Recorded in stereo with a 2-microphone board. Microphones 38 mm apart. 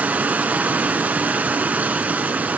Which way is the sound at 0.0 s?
45° right (ahead or behind).